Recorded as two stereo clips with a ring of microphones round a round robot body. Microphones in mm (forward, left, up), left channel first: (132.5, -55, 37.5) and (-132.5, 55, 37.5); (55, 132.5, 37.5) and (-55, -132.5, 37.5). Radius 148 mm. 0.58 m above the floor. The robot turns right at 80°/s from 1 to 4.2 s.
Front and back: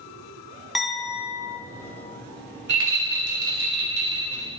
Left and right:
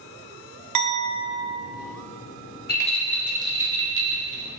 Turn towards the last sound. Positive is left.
turn(degrees=-125)